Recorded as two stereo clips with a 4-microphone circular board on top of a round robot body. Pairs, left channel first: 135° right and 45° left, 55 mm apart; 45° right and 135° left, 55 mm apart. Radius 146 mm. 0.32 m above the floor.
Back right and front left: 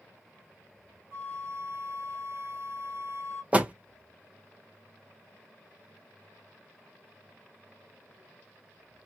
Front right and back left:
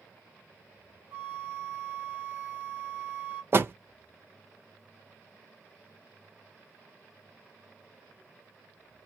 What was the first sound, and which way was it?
A flute, 75° left.